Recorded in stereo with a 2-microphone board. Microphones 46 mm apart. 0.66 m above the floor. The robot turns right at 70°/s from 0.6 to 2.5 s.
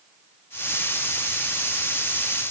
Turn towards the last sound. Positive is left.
No sound to turn to.